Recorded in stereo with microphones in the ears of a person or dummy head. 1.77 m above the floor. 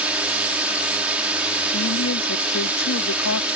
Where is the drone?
5° right (ahead or behind).